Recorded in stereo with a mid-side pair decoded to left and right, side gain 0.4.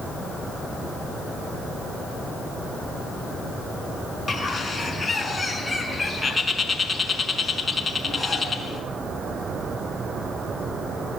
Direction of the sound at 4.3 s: 25° left.